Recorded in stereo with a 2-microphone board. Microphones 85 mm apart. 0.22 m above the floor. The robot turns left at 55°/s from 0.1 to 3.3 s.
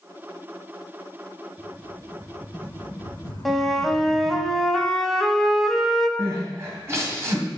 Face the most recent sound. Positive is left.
turn(degrees=-30)  # may be behind; listen again after turning